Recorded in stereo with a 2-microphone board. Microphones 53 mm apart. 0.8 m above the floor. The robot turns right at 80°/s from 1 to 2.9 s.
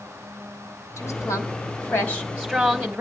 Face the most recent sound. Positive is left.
turn(degrees=-155)